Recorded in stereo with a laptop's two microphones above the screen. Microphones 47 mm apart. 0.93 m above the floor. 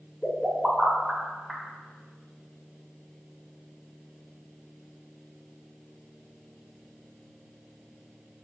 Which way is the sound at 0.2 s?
5° left (ahead or behind).